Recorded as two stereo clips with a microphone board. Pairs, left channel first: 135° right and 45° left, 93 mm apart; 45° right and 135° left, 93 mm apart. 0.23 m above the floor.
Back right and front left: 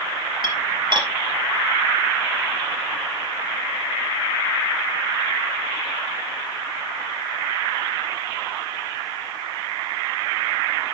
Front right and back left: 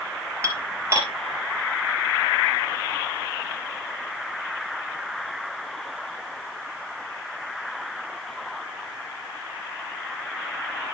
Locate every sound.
0.4 s dishes clattering: 75° left, 3.5 m